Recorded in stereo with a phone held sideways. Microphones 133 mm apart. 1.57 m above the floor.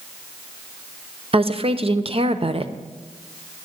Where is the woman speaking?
50° right (ahead or behind), 0.7 m.